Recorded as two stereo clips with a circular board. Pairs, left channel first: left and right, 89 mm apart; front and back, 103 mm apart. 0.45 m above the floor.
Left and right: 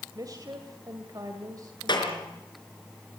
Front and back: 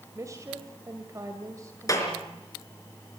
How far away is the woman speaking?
About 2 m.